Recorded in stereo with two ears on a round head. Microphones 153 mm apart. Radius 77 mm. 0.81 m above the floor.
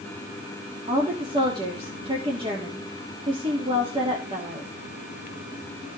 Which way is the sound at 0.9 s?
30° right (ahead or behind).